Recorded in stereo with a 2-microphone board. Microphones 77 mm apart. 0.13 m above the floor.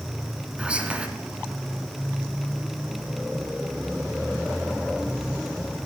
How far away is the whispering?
About 1.3 m.